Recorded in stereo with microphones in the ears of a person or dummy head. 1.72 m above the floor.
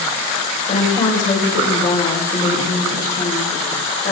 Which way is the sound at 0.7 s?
40° left (ahead or behind).